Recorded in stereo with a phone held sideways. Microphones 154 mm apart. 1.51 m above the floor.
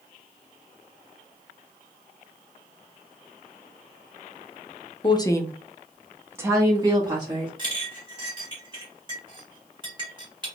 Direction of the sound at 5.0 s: 30° left (ahead or behind).